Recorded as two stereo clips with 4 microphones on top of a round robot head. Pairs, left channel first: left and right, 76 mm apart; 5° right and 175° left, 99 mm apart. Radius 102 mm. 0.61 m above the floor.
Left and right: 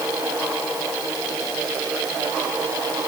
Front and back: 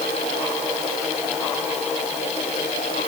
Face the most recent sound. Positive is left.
No sound to turn to.